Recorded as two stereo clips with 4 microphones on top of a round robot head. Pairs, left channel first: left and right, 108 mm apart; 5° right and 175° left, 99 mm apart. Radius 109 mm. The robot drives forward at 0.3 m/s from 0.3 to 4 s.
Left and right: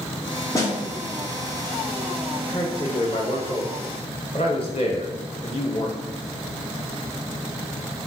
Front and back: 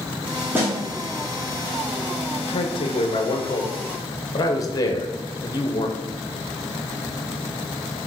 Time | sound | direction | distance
0.5 | a snare drum | 125° left | 1.2 m
2.5 | a man speaking | 20° left | 1.1 m